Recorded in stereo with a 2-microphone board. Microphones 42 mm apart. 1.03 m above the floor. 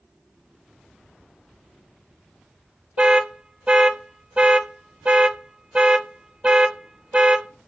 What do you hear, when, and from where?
3.0 s an alarm: 20° right (ahead or behind), 0.6 m